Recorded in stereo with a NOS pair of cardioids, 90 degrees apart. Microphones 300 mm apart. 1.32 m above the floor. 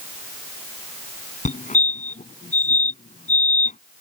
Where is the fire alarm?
25° left.